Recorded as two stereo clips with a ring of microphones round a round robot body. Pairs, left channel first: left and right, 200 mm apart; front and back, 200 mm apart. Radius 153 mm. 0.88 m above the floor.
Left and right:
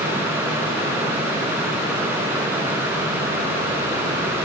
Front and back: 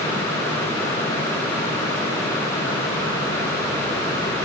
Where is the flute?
No flute in this recording.